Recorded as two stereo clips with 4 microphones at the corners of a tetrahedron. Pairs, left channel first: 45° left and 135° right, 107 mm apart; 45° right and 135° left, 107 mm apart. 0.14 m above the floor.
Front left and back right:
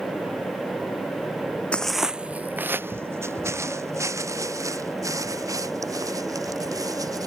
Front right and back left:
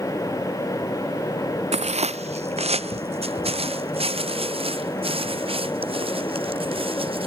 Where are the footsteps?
125° left; by 7.3 s 170° left.